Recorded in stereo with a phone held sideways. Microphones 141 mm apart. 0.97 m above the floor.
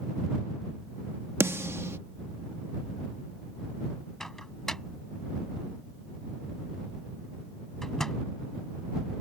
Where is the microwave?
5° left (ahead or behind).